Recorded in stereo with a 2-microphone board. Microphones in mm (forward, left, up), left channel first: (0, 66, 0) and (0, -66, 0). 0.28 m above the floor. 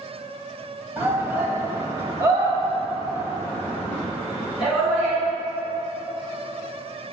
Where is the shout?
20° right (ahead or behind), 1.7 m; by 5.2 s 15° right (ahead or behind), 3.5 m.